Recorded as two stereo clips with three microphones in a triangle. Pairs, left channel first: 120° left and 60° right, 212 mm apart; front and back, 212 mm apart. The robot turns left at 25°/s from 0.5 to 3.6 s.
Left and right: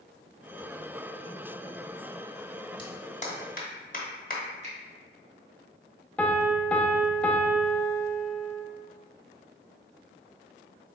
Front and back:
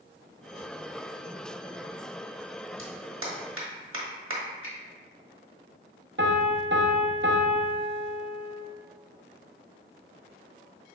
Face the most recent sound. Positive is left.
turn(degrees=-155)